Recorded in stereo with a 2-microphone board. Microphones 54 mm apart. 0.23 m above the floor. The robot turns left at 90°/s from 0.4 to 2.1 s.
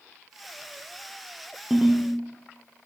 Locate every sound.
1.7 s a ringtone: 5° right, 2 m; by 2.1 s 40° right, 2 m